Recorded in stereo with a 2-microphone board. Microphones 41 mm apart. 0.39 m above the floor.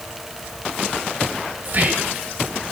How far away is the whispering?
About 1.9 m.